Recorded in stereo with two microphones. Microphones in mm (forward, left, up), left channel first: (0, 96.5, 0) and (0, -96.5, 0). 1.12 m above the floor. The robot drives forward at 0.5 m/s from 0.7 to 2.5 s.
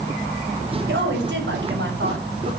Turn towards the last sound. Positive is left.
turn(degrees=-70)  # may be behind; listen again after turning